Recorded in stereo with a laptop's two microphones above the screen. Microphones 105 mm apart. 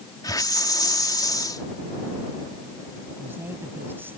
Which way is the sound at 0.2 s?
40° left (ahead or behind).